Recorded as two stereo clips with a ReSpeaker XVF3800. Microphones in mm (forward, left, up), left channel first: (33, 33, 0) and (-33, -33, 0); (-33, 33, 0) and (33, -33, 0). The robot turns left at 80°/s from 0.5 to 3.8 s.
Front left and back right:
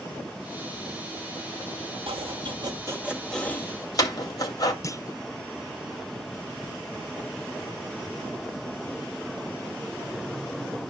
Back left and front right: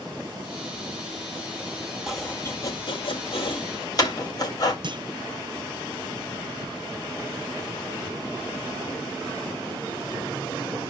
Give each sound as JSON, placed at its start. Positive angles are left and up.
{"t": 2.1, "sound": "chopping", "azimuth_deg": -130, "distance_m": 2.5}
{"t": 4.8, "sound": "a clunk", "azimuth_deg": -10, "distance_m": 0.5}